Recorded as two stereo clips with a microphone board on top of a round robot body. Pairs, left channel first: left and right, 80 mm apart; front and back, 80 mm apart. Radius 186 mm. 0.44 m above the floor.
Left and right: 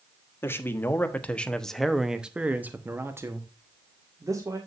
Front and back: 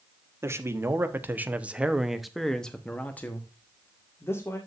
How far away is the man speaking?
About 1.7 m.